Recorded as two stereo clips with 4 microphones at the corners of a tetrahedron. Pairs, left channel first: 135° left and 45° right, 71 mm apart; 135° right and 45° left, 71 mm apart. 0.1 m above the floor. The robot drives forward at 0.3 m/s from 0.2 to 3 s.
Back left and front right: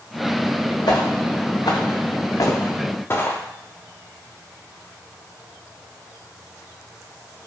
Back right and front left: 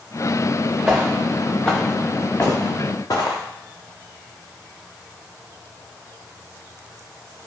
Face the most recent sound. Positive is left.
turn(degrees=-160)